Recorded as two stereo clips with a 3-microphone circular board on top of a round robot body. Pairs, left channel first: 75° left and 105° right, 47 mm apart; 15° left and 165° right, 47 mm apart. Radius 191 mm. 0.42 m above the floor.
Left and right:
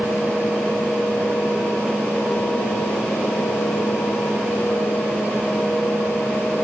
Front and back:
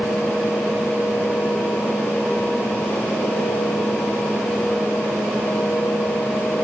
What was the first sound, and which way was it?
Only background noise.